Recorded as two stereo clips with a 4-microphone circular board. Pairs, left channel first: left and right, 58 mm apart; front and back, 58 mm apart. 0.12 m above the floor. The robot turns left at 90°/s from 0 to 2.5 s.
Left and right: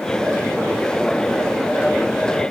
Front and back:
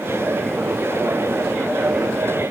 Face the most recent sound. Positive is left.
No sound to turn to.